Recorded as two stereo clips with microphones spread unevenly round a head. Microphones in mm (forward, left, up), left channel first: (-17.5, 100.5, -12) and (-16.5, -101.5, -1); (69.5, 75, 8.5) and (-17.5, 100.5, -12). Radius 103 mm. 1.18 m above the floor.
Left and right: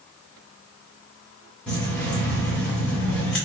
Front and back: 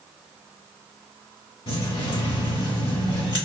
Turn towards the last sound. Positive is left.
turn(degrees=0)